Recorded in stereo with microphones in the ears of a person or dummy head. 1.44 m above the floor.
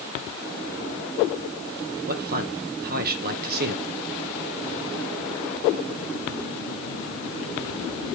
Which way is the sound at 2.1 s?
50° right (ahead or behind).